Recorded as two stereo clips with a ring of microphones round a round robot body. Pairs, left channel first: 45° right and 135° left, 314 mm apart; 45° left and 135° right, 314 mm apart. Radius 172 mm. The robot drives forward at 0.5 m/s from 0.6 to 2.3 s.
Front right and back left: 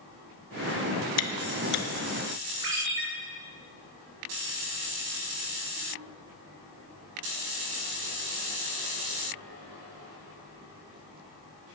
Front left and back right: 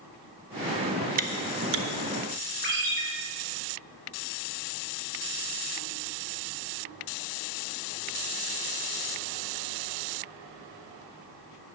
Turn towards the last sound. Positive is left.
turn(degrees=165)